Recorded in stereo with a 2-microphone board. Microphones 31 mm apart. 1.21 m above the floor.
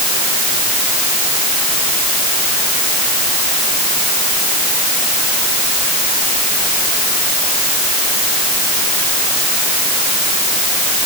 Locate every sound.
Only background noise.